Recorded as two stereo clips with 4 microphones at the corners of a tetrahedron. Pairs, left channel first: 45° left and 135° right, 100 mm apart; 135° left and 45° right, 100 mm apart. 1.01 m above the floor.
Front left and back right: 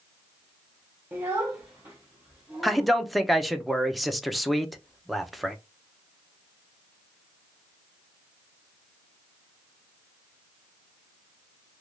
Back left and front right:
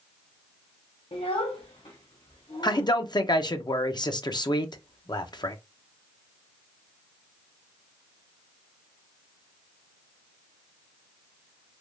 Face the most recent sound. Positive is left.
turn(degrees=135)